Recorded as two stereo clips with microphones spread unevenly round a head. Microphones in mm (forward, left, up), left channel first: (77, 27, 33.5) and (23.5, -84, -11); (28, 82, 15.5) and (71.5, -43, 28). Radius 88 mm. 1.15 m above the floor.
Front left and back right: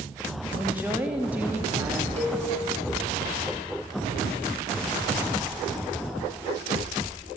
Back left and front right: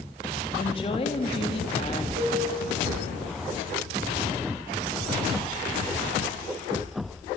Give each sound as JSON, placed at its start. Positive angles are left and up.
{"t": 0.6, "sound": "a woman speaking", "azimuth_deg": 165, "distance_m": 2.0}
{"t": 2.2, "sound": "a cowbell", "azimuth_deg": -85, "distance_m": 7.5}